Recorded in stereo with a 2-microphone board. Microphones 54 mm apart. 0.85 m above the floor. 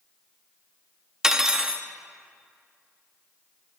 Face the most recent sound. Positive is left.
turn(degrees=-10)  # may be behind; listen again after turning